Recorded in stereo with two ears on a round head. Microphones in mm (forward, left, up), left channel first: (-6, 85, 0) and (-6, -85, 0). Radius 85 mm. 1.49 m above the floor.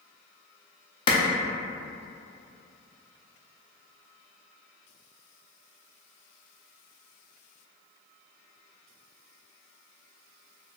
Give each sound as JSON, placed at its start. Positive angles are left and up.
{"t": 1.1, "sound": "a clap", "side_deg": 25, "distance_m": 0.5}